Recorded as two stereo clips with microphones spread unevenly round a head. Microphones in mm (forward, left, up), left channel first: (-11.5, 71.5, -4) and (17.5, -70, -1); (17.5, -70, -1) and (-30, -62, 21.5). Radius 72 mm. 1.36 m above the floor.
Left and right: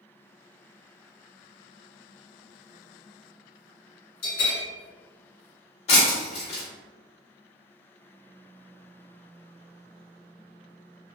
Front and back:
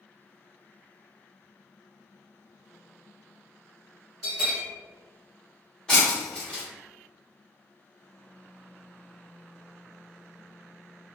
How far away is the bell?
About 1.8 m.